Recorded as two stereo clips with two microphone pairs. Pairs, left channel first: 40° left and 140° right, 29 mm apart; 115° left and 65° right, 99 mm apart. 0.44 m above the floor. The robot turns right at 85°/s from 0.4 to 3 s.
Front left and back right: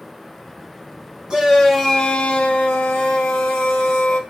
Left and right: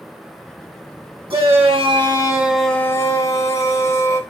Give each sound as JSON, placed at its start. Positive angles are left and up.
{"t": 1.3, "sound": "a shout", "azimuth_deg": -85, "distance_m": 3.0}